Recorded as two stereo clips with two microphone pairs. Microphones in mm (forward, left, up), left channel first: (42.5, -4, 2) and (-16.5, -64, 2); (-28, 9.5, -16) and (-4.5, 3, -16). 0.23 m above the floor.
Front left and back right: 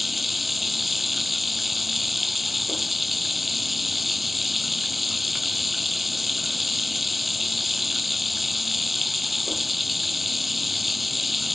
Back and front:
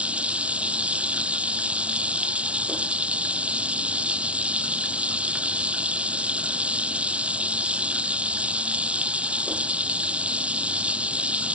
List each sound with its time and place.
0.0 s running water: 45° right